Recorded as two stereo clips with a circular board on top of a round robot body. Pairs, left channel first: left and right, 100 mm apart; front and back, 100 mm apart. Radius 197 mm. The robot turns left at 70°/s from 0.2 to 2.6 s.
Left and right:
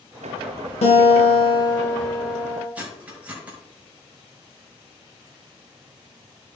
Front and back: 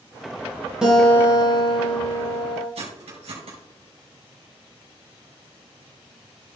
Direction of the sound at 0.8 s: 95° left.